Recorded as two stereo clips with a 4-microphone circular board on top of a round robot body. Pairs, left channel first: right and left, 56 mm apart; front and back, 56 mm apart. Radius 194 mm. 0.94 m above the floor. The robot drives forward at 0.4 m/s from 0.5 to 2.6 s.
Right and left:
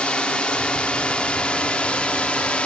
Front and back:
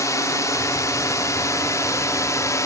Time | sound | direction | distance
0.0 | a drone | 15° right | ?